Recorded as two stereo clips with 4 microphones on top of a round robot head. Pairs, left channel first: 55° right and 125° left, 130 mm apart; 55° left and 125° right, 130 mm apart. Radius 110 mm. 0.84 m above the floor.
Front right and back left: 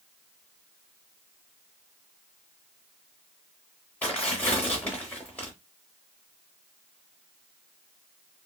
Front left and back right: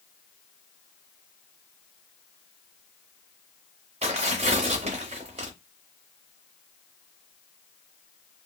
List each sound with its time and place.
4.0 s tearing paper: 130° right, 0.6 m